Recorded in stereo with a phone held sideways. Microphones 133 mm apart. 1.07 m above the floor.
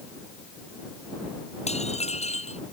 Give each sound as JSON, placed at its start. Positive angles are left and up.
{"t": 1.7, "sound": "dishes clattering", "side_deg": 55}